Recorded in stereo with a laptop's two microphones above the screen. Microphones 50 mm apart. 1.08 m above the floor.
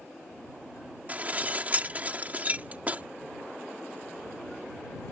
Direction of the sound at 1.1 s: 30° right (ahead or behind).